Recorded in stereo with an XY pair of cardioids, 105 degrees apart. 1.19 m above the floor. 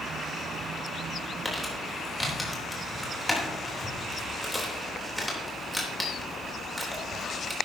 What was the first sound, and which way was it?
Crumpling, 5° left.